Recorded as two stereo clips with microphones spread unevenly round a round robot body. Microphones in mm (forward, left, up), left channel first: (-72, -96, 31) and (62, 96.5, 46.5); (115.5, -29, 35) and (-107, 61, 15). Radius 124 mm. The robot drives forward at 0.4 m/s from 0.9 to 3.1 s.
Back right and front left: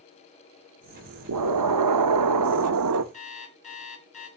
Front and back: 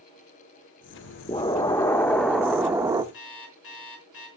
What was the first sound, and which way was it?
An explosion, 50° left.